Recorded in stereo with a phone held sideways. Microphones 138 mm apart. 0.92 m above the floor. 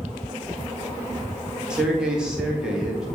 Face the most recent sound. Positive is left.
turn(degrees=-5)  # may be behind; listen again after turning